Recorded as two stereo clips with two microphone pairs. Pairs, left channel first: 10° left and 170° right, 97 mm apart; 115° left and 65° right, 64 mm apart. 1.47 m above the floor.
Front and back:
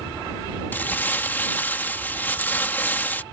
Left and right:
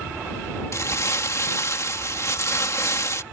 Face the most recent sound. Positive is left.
turn(degrees=80)